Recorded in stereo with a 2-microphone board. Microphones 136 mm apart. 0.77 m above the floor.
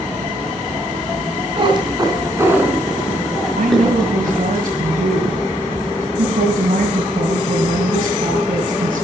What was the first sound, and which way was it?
A cat meowing, 40° right (ahead or behind).